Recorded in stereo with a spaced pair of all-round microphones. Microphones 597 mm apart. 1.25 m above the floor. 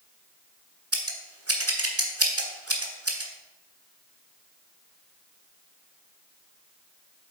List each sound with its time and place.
0.9 s scissors: 25° right (ahead or behind), 1.3 m